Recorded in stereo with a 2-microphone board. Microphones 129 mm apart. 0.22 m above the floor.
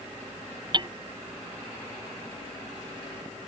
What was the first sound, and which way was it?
Hammering, 35° right (ahead or behind).